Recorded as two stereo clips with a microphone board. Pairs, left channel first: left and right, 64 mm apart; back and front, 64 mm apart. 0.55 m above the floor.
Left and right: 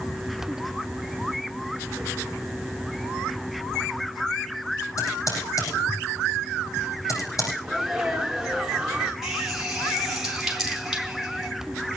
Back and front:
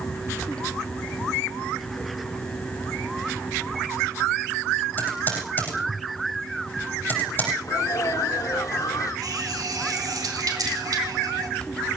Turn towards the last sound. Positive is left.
turn(degrees=-5)